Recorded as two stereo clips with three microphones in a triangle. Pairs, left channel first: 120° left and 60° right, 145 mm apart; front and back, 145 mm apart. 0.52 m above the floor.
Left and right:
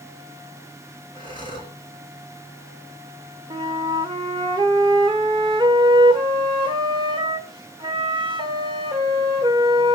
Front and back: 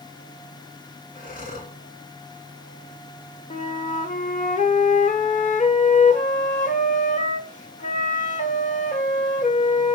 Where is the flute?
10° right, 1.6 m.